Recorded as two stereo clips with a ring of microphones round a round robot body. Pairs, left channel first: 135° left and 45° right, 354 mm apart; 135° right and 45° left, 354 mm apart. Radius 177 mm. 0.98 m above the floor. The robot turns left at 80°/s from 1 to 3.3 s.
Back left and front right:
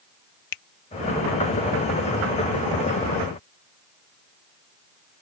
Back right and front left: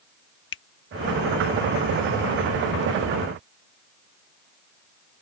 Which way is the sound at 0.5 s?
170° left.